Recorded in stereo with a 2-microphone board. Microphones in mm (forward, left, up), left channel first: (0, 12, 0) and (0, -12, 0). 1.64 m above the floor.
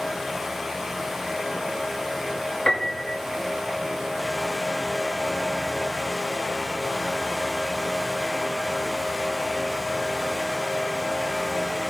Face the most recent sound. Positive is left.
turn(degrees=45)  # may be behind; listen again after turning